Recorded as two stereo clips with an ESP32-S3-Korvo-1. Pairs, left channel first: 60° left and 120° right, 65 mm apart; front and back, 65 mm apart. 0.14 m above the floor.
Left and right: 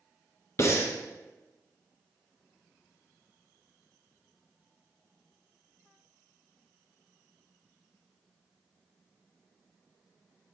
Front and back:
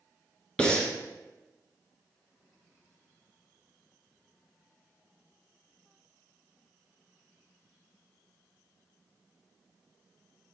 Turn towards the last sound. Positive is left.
turn(degrees=70)